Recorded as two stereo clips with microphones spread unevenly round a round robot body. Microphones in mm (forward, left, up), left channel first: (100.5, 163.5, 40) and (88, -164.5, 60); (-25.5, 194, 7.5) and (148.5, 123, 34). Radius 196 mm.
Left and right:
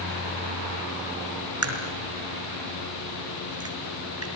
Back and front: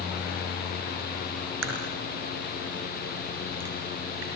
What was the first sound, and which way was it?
A crack, 50° right.